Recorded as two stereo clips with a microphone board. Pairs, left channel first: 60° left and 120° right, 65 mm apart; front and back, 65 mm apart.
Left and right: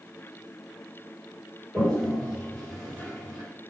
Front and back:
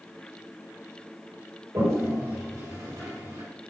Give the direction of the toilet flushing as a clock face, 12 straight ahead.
7 o'clock.